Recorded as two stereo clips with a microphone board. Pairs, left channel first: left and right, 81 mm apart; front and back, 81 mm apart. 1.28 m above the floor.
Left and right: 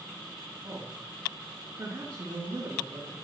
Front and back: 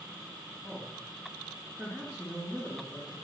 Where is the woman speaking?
95° right, 2 m.